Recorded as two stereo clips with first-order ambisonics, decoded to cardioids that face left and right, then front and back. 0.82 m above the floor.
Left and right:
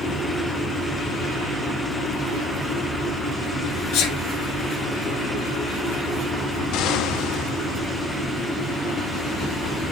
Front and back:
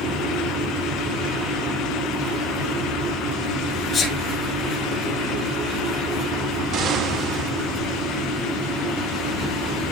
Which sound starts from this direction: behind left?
An explosion, at 6.7 s.